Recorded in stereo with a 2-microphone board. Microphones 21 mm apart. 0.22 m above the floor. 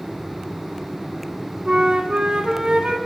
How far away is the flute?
About 1.0 m.